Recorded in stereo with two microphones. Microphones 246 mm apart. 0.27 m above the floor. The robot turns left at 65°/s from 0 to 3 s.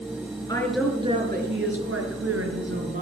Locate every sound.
0.5 s a woman speaking: 15° left, 5 m; by 3.0 s 145° right, 5 m